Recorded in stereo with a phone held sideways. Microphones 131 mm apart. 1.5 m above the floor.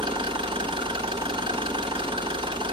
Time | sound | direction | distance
0.0 | an engine running | 40° right (ahead or behind) | 0.9 m